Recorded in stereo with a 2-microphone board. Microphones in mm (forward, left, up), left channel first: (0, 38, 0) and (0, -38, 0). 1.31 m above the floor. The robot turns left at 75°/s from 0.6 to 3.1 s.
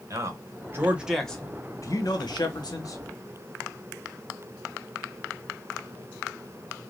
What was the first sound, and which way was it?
A man speaking, 135° right.